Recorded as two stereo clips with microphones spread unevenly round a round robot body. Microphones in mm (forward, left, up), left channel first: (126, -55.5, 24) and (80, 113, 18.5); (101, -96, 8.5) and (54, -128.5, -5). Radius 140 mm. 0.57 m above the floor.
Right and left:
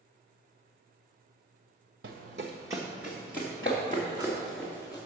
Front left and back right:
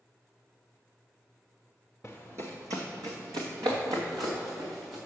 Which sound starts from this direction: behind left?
Running footsteps, at 2.0 s.